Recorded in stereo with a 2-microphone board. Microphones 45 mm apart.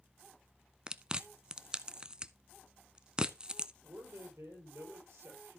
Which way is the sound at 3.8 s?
70° right (ahead or behind).